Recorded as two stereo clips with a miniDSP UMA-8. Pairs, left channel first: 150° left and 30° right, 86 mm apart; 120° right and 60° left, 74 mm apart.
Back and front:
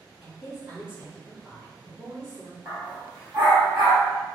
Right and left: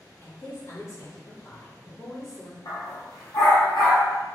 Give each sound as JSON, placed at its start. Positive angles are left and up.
{"t": 0.2, "sound": "a woman speaking", "azimuth_deg": -120, "distance_m": 1.1}
{"t": 2.6, "sound": "a dog barking", "azimuth_deg": -105, "distance_m": 1.7}